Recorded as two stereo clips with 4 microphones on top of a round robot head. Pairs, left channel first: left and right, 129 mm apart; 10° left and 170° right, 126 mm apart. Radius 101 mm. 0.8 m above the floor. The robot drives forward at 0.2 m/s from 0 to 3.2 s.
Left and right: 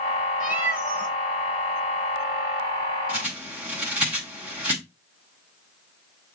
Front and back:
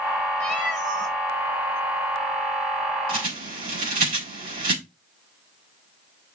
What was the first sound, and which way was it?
A cat meowing, 120° right.